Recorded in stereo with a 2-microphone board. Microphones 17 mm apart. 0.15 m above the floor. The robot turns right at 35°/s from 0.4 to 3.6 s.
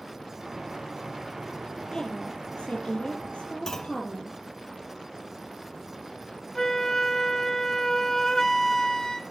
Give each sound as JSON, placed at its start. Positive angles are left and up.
{"t": 1.9, "sound": "a woman speaking", "azimuth_deg": 50, "distance_m": 5.0}
{"t": 3.7, "sound": "a clunk", "side_deg": 25, "distance_m": 1.0}
{"t": 6.5, "sound": "a flute", "side_deg": 25, "distance_m": 1.1}